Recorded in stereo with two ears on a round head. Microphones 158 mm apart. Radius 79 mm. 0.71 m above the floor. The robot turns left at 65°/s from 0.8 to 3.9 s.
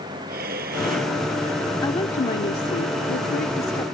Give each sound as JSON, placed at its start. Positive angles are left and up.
{"t": 0.3, "sound": "breathing", "side_deg": -55}
{"t": 1.8, "sound": "a woman speaking", "azimuth_deg": 155}